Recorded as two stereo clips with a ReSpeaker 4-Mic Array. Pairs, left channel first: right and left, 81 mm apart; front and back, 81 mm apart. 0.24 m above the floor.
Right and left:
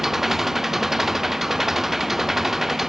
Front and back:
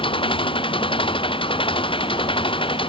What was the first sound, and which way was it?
An engine running, 5° left.